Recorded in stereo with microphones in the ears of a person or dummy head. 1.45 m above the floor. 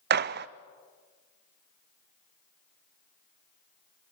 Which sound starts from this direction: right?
A gunshot, at 0.1 s.